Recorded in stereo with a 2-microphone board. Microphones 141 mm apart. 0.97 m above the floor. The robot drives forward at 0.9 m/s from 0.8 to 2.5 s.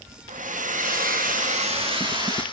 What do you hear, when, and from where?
0.3 s a hair dryer: 70° right (ahead or behind), 0.7 m; by 2.4 s 30° right (ahead or behind), 1.4 m